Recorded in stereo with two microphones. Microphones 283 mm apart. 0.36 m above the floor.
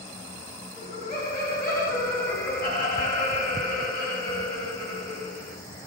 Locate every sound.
0.8 s laughter: 30° left (ahead or behind), 1.8 m